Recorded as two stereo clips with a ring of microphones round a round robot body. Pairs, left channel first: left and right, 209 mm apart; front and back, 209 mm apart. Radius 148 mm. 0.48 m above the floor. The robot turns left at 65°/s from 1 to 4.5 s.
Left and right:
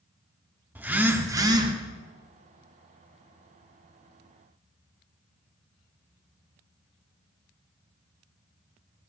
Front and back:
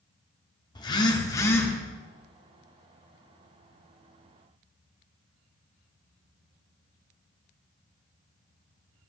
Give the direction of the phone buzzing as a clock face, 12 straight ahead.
1 o'clock.